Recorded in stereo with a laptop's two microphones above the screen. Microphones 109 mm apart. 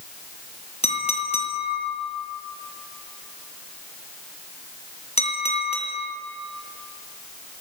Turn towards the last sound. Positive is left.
turn(degrees=70)  # may be behind; listen again after turning